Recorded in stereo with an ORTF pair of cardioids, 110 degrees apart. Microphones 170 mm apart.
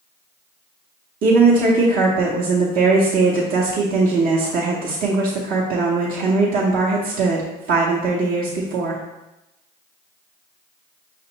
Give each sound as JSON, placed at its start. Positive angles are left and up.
{"t": 1.2, "sound": "a woman speaking", "azimuth_deg": -65, "distance_m": 0.9}